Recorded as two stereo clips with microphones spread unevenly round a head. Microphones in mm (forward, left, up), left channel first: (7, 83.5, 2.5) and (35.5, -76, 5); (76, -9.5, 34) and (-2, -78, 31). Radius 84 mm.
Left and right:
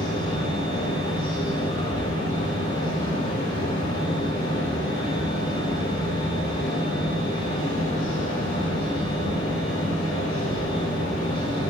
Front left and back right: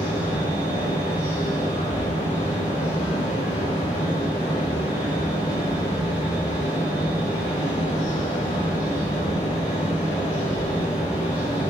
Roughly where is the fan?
Ahead left.